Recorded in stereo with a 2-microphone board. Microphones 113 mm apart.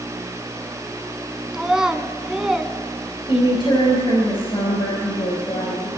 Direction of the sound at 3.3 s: 50° left (ahead or behind).